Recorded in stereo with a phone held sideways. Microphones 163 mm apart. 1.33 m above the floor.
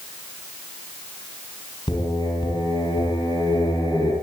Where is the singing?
30° left (ahead or behind), 9 m.